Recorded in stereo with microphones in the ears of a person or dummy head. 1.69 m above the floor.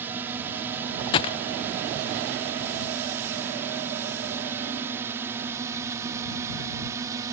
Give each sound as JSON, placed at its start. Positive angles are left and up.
{"t": 0.0, "sound": "a drone", "side_deg": -15}
{"t": 1.1, "sound": "a gunshot", "side_deg": 25}